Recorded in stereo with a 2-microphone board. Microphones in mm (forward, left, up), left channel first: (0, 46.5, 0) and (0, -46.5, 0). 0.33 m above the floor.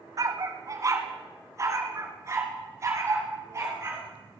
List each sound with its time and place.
0.2 s a dog barking: 40° right (ahead or behind), 0.8 m; by 4.0 s 30° right (ahead or behind), 3 m